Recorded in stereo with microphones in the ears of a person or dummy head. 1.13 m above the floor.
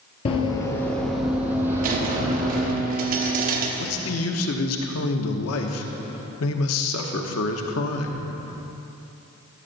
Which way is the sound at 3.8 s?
75° left (ahead or behind).